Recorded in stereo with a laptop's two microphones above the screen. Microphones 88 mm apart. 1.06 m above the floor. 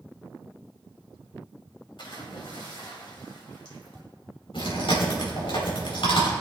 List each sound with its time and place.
2.0 s a splash: 70° left (ahead or behind), 2.5 m
4.5 s chewing: 85° left, 4 m